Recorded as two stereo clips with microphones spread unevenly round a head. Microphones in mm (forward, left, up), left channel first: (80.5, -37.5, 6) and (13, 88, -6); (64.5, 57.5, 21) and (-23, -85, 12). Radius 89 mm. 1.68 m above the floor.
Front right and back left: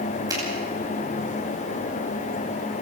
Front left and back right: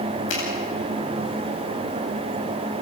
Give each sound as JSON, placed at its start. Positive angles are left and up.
{"t": 0.3, "sound": "a finger snap", "azimuth_deg": 55, "distance_m": 9.5}